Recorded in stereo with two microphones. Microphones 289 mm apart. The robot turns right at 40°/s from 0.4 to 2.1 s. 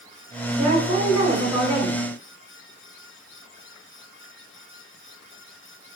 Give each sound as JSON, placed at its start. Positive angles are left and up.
{"t": 0.6, "sound": "a woman speaking", "azimuth_deg": 85, "distance_m": 1.3}